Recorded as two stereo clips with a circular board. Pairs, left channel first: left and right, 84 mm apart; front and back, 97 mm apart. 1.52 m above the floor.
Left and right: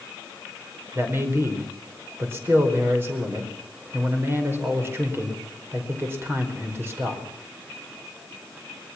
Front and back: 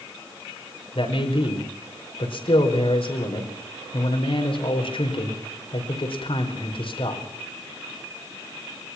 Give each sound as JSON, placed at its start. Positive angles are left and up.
{"t": 0.9, "sound": "a man speaking", "azimuth_deg": -25, "distance_m": 5.0}